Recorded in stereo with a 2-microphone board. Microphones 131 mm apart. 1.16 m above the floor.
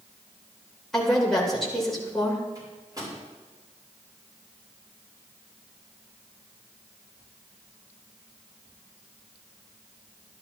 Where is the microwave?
30° right (ahead or behind), 5 m.